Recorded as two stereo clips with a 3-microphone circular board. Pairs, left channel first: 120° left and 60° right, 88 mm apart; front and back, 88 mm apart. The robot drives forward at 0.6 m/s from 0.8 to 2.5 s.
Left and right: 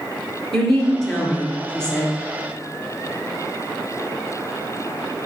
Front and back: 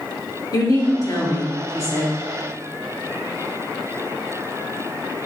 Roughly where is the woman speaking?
Ahead left.